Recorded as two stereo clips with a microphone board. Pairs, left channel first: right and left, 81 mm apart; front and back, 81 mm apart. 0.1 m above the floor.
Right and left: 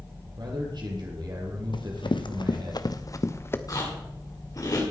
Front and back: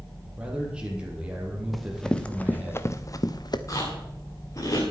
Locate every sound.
0.4 s a man speaking: 105° left, 4 m
1.7 s running footsteps: 90° right, 1.4 m; by 3.6 s 30° right, 1.2 m
3.7 s chewing: 50° right, 6 m